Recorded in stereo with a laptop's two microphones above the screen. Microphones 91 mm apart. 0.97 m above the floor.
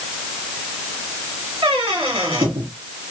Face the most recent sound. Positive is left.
turn(degrees=-80)